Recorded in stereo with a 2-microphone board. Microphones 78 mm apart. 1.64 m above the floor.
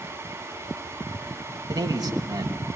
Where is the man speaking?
55° right (ahead or behind), 3 m.